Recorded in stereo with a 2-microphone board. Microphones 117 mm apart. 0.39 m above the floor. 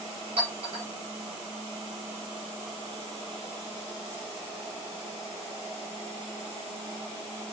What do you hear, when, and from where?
0.4 s a clink: 55° right (ahead or behind), 5.5 m